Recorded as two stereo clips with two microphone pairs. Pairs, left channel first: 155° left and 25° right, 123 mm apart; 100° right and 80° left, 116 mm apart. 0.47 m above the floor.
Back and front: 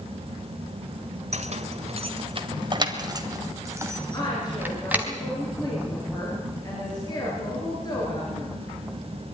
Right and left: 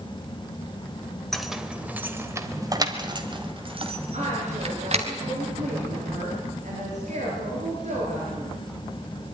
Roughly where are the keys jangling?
Ahead.